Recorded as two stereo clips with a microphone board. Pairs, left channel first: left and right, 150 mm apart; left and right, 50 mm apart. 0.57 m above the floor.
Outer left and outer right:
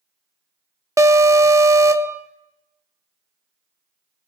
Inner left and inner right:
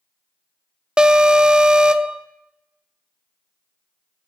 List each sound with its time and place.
1.0 s an alarm: 20° right (ahead or behind), 0.5 m